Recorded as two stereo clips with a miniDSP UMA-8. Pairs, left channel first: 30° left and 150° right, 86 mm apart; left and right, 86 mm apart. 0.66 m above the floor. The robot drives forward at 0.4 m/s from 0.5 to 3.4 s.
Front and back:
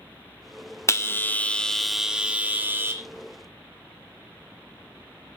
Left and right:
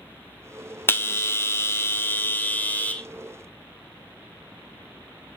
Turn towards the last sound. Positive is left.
turn(degrees=160)